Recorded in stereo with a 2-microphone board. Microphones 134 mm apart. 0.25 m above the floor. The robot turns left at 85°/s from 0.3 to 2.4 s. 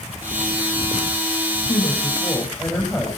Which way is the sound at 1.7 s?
70° left.